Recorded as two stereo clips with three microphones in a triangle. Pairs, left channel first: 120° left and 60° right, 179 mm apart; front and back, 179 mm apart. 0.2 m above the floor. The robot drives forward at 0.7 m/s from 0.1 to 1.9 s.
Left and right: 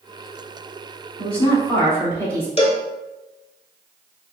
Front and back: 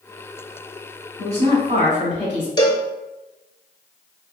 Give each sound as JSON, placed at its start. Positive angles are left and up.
{"t": 1.2, "sound": "a woman speaking", "azimuth_deg": -160, "distance_m": 1.5}
{"t": 2.6, "sound": "a cowbell", "azimuth_deg": 65, "distance_m": 0.5}